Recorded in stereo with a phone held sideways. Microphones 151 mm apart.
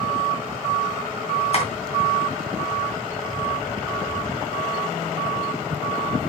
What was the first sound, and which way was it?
Tapping, 45° left (ahead or behind).